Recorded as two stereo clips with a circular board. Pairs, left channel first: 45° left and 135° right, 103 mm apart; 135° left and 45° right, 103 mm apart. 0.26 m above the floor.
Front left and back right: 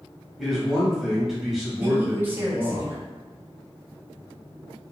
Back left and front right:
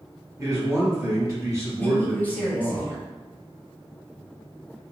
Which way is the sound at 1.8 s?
Straight behind.